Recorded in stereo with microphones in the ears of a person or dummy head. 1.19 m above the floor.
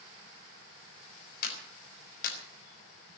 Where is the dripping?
No dripping in this recording.